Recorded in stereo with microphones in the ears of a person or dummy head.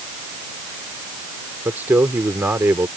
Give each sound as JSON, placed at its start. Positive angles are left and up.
{"t": 1.6, "sound": "a man speaking", "side_deg": -15}